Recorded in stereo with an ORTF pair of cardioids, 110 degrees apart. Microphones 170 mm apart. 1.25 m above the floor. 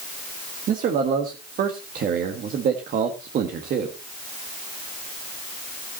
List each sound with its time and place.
0.7 s a man speaking: 55° right, 1.6 m